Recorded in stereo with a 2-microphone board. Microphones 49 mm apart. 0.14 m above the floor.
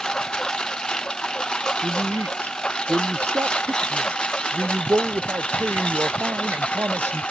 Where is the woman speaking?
60° right (ahead or behind).